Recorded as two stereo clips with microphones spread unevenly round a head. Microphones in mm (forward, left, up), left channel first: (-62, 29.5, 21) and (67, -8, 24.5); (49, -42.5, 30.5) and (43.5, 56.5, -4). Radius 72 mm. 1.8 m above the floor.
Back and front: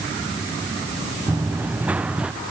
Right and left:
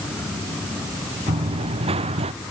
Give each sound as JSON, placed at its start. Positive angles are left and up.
{"t": 1.3, "sound": "running footsteps", "azimuth_deg": 60}